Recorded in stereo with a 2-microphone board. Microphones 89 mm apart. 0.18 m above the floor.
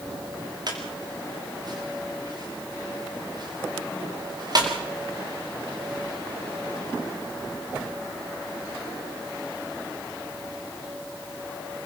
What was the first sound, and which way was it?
A squeak, 50° right (ahead or behind).